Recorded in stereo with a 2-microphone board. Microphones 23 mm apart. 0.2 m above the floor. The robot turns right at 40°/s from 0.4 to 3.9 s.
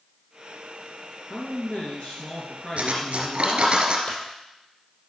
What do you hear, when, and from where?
1.3 s a man speaking: 75° left, 2.5 m; by 3.8 s 175° left, 2.5 m
2.8 s cutlery clinking: 90° right, 2.0 m; by 4.0 s 45° right, 2.0 m
4.1 s a clunk: 55° left (ahead or behind), 3 m